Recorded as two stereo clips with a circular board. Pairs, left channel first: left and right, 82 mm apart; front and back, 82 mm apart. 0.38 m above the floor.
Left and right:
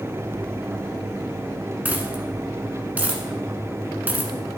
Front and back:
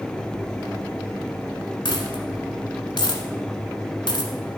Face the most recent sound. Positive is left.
turn(degrees=-20)